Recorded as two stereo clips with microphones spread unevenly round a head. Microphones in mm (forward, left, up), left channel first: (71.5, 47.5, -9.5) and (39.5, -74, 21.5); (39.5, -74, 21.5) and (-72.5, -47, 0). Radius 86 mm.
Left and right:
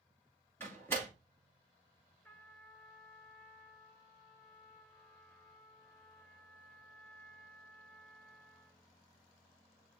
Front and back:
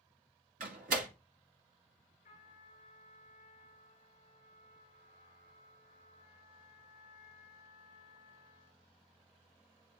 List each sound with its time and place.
0.6 s a door slam: 155° left, 2.0 m
2.2 s a trumpet: straight ahead, 5 m